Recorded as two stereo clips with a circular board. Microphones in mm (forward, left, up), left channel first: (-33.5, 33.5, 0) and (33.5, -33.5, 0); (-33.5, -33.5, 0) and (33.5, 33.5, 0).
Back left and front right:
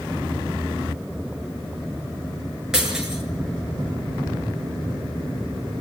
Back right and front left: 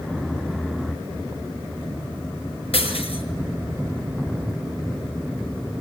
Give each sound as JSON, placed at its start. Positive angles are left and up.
{"t": 2.7, "sound": "breaking glass", "azimuth_deg": -130, "distance_m": 6.5}